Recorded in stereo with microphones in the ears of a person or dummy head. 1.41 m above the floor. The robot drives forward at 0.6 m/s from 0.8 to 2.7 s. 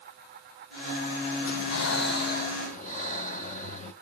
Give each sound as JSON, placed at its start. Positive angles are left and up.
{"t": 1.4, "sound": "breathing", "side_deg": 85, "distance_m": 0.7}